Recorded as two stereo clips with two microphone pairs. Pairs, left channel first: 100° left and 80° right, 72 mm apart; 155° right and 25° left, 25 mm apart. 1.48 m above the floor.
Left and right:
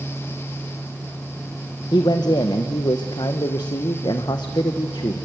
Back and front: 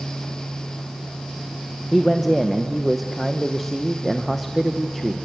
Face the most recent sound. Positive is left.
turn(degrees=115)